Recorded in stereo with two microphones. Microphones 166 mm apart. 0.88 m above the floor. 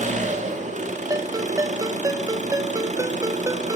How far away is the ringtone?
About 0.7 m.